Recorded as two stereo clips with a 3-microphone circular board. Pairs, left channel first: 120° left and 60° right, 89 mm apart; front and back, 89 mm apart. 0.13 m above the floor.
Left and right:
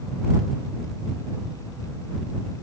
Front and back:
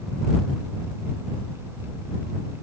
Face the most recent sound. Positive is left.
No sound to turn to.